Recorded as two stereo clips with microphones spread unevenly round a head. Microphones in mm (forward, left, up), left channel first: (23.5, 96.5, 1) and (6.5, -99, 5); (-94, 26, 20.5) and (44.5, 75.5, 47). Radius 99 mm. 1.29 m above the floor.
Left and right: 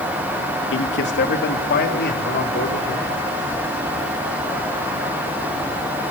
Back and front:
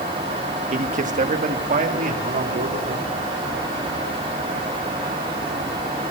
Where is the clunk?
No clunk in this recording.